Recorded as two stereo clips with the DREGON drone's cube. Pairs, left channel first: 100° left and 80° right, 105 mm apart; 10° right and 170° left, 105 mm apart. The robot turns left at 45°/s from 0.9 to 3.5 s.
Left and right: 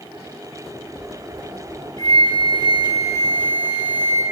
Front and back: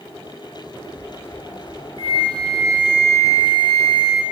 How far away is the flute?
About 0.8 m.